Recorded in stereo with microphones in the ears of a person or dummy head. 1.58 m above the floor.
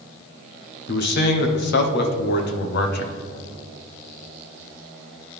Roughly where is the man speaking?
Left.